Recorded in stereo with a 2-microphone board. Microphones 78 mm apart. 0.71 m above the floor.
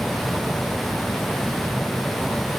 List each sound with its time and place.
Only background noise.